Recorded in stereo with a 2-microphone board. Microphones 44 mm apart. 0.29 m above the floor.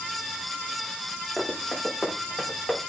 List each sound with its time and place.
1.4 s running footsteps: centre (ahead or behind), 4.5 m; by 2.8 s 20° left (ahead or behind), 5.5 m